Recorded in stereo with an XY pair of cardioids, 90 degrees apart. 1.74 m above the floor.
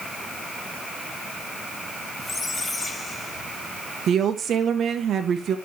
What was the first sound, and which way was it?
A squeak, 25° left.